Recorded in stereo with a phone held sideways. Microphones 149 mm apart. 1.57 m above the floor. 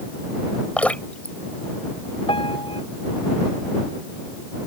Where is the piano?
35° left (ahead or behind).